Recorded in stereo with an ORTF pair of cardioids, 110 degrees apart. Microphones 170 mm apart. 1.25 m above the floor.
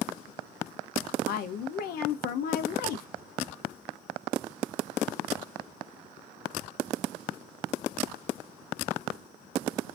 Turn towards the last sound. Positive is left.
turn(degrees=60)